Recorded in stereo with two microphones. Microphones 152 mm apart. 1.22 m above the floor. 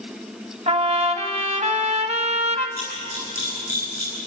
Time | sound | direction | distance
0.7 | a trumpet | 50° right (ahead or behind) | 1.4 m
2.8 | a camera shutter | 75° left (ahead or behind) | 9.5 m